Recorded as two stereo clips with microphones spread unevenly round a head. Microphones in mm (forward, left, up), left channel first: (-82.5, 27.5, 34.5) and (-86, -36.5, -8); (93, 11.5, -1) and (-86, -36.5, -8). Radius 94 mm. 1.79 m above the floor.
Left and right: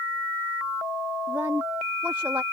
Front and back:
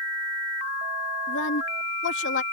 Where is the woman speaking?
10° right.